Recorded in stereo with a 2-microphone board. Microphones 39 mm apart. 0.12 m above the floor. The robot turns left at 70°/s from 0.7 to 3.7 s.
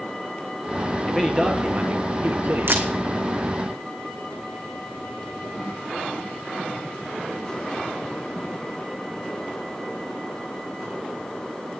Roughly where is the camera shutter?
Right.